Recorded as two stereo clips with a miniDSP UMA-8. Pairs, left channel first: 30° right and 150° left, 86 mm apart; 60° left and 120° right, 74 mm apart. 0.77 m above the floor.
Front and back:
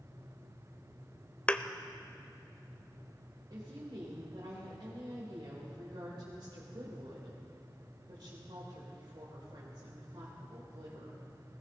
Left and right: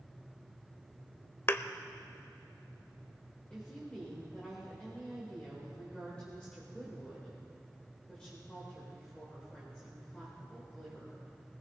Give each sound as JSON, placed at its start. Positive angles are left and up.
{"t": 1.5, "sound": "a thud", "azimuth_deg": 35, "distance_m": 0.5}
{"t": 3.5, "sound": "a woman speaking", "azimuth_deg": 135, "distance_m": 3.5}